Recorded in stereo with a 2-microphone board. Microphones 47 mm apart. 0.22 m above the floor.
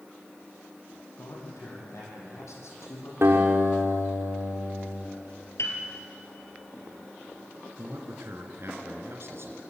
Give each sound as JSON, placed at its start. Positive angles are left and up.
{"t": 1.2, "sound": "a man speaking", "side_deg": 80, "distance_m": 8.5}
{"t": 3.2, "sound": "a guitar", "side_deg": -60, "distance_m": 6.0}
{"t": 5.6, "sound": "a piano", "side_deg": 75, "distance_m": 4.0}
{"t": 7.8, "sound": "a man speaking", "side_deg": -65, "distance_m": 2.5}